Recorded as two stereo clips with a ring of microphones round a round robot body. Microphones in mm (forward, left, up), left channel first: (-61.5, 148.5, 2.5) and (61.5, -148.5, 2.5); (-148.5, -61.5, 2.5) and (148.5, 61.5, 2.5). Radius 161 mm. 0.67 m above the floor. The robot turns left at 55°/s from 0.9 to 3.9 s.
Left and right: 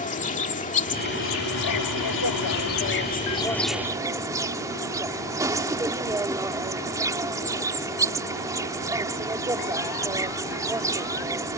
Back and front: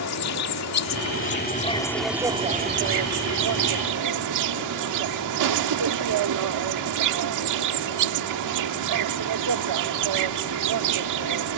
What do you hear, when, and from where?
0.0 s an insect: 175° left; by 11.6 s 10° left